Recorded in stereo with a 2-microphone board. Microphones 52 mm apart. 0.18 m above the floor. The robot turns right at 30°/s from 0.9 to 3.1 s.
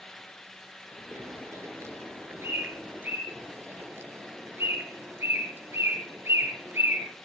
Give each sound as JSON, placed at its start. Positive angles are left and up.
{"t": 1.1, "sound": "a bird", "side_deg": -65, "distance_m": 3.5}
{"t": 3.3, "sound": "a bird", "side_deg": -50, "distance_m": 4.0}